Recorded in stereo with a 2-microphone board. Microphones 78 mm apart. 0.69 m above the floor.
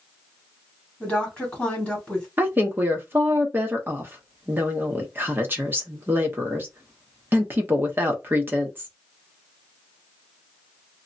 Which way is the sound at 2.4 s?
30° right (ahead or behind).